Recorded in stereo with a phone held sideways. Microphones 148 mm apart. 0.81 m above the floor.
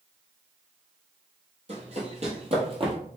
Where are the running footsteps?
45° right (ahead or behind), 1.2 m; by 3.0 s 35° right (ahead or behind), 1.1 m.